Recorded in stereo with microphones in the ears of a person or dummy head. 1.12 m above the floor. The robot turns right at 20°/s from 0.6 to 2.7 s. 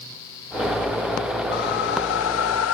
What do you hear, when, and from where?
1.5 s a whoosh: 55° left (ahead or behind), 0.8 m; by 2.8 s 70° left (ahead or behind), 0.8 m